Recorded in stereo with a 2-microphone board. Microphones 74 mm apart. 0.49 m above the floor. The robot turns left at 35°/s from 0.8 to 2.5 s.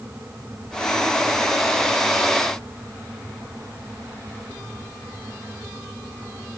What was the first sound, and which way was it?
Only background noise.